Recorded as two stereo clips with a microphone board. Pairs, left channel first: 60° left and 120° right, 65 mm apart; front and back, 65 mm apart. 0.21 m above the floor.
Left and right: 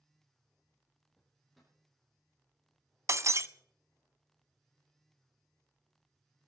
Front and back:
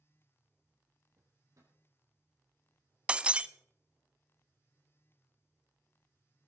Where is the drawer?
150° left, 4.5 m.